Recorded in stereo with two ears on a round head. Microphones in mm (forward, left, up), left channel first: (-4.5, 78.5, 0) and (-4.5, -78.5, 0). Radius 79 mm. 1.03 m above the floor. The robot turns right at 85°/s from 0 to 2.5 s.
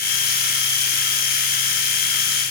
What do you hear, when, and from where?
Only background noise.